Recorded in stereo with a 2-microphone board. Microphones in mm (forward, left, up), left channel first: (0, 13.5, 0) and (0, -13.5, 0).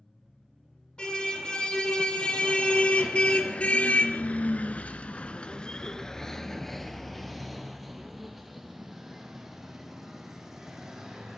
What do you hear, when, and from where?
1.0 s a car horn: 35° left (ahead or behind), 3.5 m; by 11.4 s 10° right (ahead or behind), 5 m